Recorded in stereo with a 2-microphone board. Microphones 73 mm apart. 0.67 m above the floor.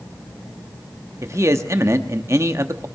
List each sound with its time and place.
1.2 s a man speaking: 40° right (ahead or behind), 0.9 m